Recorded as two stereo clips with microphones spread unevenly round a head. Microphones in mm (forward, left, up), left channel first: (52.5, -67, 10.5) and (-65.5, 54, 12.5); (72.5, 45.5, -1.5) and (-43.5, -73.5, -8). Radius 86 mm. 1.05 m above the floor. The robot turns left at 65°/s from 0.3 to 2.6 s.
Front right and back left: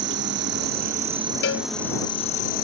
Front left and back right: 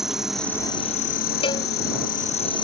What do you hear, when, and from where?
0.0 s an insect: 135° left; by 2.6 s 15° right
1.4 s a cowbell: 15° right; by 1.7 s 30° right